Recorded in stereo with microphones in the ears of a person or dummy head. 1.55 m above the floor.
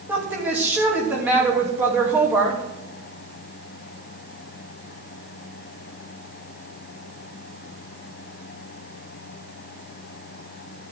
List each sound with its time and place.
0.1 s a woman speaking: 10° right (ahead or behind), 2.5 m